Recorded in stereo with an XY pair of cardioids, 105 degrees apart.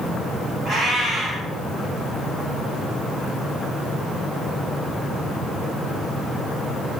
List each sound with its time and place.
0.7 s a cat meowing: 60° right, 1.9 m